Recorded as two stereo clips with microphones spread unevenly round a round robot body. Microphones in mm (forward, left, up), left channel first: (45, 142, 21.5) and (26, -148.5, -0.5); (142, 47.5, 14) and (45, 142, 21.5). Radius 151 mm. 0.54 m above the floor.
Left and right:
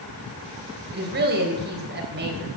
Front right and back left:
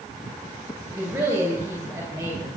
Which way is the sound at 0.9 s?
150° right.